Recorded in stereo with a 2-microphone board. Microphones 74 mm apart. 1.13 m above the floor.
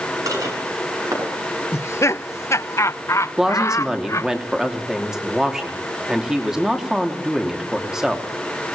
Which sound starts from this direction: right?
Dishes clattering, at 0.3 s.